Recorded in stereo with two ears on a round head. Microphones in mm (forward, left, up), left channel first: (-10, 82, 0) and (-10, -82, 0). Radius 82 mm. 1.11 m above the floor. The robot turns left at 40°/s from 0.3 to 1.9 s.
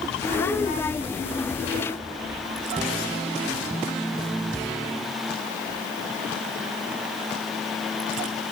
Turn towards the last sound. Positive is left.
No sound to turn to.